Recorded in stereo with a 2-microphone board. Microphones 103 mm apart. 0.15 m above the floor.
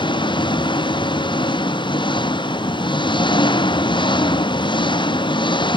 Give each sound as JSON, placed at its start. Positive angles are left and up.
{"t": 0.0, "sound": "an engine running", "side_deg": 55}